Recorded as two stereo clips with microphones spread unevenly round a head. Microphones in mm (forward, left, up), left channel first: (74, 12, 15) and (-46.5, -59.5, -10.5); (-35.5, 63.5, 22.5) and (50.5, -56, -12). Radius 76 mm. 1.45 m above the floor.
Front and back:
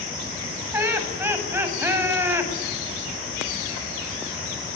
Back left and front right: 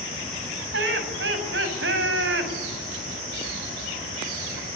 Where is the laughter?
75° right, 7.5 m.